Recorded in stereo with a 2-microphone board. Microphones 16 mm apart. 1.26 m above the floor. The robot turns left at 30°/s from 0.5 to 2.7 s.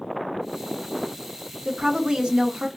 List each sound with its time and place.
1.6 s a woman speaking: 85° right, 0.9 m; by 2.7 s 115° right, 0.9 m